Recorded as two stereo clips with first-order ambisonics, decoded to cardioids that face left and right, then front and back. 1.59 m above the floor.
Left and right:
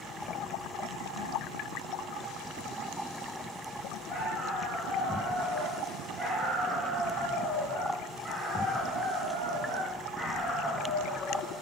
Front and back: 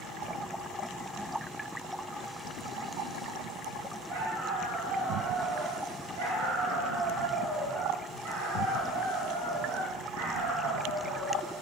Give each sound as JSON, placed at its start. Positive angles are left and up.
{"t": 4.1, "sound": "a dog barking", "azimuth_deg": 180, "distance_m": 5.0}